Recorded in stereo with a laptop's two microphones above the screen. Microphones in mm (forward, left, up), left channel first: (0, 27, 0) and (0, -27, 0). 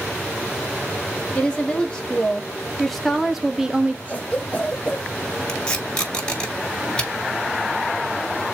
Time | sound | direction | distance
1.4 | a woman speaking | 25° left (ahead or behind) | 3 m
4.1 | a cough | 25° left (ahead or behind) | 1.3 m
5.5 | tape being pulled | 20° left (ahead or behind) | 4 m